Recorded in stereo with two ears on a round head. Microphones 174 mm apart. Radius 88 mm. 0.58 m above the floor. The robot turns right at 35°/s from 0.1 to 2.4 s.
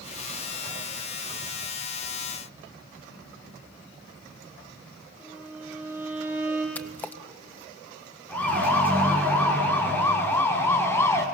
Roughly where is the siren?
Centre.